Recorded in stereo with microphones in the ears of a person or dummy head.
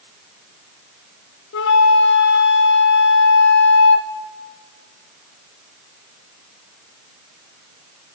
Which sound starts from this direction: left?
A flute, at 1.5 s.